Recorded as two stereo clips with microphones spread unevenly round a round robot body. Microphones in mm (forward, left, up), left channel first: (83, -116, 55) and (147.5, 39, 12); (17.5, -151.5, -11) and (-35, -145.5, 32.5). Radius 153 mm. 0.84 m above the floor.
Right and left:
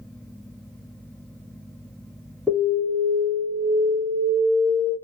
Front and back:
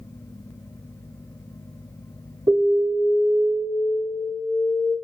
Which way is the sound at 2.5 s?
140° left.